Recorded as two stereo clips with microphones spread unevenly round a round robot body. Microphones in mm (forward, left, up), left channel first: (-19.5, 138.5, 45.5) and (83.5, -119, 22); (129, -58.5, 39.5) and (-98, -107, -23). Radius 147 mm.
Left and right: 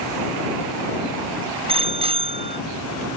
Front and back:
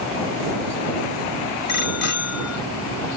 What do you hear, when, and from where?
1.7 s a bicycle bell: straight ahead